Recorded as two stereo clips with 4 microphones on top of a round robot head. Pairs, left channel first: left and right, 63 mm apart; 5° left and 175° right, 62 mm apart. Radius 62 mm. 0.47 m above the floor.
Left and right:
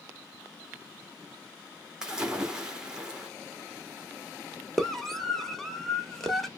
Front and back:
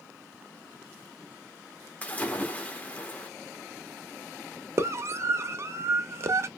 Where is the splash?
25° right, 1.3 m.